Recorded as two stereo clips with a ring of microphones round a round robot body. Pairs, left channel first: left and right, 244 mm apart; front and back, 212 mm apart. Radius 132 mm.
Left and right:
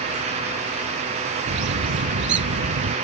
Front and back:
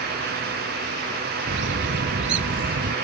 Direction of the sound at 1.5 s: 135° right.